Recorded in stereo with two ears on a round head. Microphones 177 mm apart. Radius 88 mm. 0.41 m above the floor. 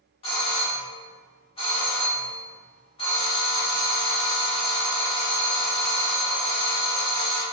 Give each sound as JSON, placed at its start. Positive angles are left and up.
{"t": 0.2, "sound": "a doorbell", "side_deg": 30, "distance_m": 1.3}